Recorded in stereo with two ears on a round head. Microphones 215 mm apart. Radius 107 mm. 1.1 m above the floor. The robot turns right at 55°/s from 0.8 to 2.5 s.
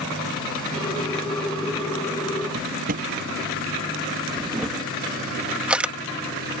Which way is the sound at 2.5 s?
35° right (ahead or behind).